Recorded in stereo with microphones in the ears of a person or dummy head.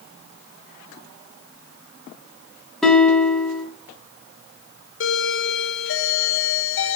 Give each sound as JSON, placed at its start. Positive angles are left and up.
{"t": 2.8, "sound": "a guitar", "side_deg": 5, "distance_m": 2.5}
{"t": 5.0, "sound": "a doorbell", "side_deg": 60, "distance_m": 1.3}